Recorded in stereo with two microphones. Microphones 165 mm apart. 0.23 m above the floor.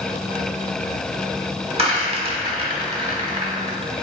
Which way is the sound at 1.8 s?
35° right (ahead or behind).